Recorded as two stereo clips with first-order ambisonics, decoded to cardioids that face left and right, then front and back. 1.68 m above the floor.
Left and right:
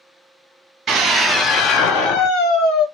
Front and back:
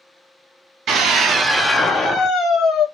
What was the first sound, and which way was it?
A scream, 155° right.